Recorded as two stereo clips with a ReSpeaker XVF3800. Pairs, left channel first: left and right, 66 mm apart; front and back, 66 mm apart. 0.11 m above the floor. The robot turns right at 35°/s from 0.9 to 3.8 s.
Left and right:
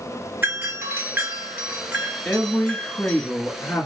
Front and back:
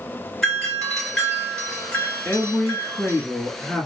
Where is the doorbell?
75° right, 1.6 m; by 3.2 s 5° left, 1.6 m.